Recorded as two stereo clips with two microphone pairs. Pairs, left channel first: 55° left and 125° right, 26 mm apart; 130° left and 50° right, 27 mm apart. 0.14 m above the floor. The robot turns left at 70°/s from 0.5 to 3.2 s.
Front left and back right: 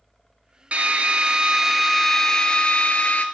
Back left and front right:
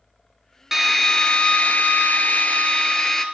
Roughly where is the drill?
Behind right.